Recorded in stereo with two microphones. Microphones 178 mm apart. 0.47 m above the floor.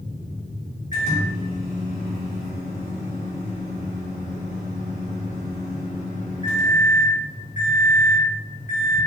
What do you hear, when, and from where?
0.9 s a microwave: 45° left (ahead or behind), 0.9 m